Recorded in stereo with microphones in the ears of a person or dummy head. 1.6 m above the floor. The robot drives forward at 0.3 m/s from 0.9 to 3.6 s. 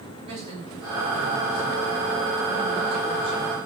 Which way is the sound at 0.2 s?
35° right (ahead or behind).